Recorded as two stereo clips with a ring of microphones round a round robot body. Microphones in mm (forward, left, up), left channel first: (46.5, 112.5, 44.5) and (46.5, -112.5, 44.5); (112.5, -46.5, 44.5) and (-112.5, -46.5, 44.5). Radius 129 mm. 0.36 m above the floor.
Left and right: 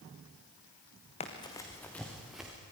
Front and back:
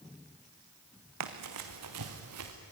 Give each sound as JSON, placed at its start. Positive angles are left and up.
{"t": 1.2, "sound": "running footsteps", "azimuth_deg": 155, "distance_m": 2.0}